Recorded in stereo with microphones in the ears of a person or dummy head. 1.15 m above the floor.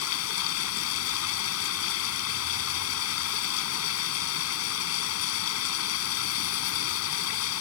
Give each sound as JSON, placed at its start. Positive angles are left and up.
{"t": 0.0, "sound": "running water", "side_deg": 85}